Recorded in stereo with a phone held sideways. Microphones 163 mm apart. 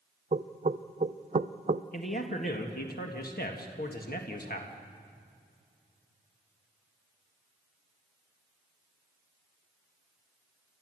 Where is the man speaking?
60° left (ahead or behind), 1.7 m.